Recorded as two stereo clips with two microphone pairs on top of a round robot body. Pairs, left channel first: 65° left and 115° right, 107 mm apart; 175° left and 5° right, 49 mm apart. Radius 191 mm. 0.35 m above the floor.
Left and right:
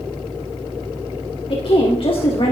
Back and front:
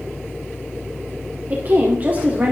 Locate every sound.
1.5 s a woman speaking: 45° left, 2 m